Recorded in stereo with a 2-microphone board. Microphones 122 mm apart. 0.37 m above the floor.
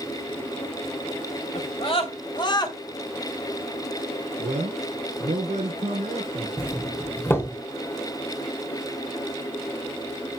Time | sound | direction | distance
1.6 | a scream | 55° left (ahead or behind) | 2 m
4.4 | a man speaking | 80° right | 5 m
6.6 | a doorbell | 20° left (ahead or behind) | 1.4 m